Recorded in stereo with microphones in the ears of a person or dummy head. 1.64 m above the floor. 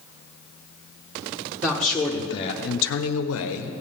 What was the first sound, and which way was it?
A man speaking, 5° right (ahead or behind).